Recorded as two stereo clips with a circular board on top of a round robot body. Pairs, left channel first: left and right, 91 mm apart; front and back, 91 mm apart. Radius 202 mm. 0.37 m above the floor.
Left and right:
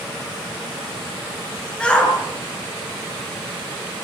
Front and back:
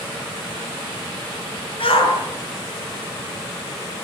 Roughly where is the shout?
Ahead.